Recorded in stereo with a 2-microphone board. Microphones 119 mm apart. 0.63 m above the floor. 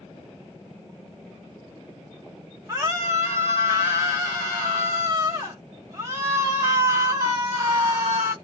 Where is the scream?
25° right (ahead or behind), 0.8 m.